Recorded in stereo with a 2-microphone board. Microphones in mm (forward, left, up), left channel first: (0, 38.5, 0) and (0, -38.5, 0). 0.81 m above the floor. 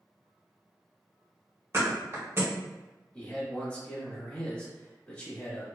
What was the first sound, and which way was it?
A thud, 35° right (ahead or behind).